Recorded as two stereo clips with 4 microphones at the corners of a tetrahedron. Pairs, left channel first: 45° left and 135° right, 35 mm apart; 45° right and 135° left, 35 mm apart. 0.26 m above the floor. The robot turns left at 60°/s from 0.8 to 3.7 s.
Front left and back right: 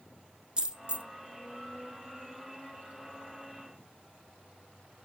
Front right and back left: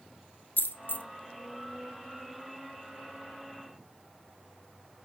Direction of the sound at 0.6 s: 70° right.